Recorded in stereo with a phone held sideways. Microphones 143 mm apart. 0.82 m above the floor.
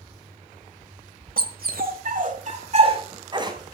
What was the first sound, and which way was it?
A dog barking, 75° right (ahead or behind).